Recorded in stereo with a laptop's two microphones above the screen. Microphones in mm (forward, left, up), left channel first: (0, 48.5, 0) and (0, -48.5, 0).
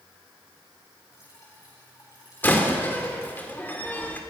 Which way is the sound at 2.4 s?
20° left (ahead or behind).